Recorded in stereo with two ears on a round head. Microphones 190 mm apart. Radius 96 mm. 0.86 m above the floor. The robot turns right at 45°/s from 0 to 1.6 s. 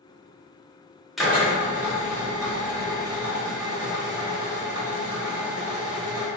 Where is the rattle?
No rattle in this recording.